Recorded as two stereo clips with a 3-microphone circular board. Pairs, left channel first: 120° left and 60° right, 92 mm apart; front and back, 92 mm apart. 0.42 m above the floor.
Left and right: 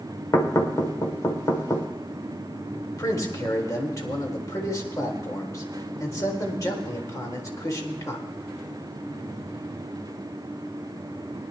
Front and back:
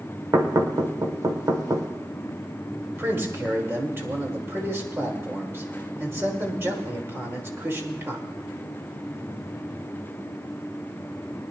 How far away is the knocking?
About 1.2 m.